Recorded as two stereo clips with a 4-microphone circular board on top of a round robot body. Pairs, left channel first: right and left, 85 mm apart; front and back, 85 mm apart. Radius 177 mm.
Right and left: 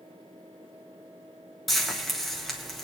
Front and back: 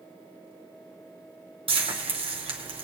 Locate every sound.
1.7 s frying: straight behind, 1.5 m